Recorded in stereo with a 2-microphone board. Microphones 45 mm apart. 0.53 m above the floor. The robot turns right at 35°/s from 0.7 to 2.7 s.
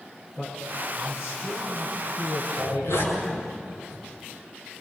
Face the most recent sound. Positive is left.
turn(degrees=80)